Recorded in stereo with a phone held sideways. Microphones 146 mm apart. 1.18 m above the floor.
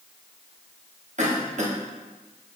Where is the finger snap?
I don't hear a finger snap.